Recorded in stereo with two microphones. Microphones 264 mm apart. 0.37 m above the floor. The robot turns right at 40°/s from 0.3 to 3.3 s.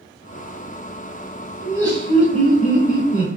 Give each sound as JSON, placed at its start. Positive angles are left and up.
{"t": 1.6, "sound": "laughter", "azimuth_deg": -165, "distance_m": 0.9}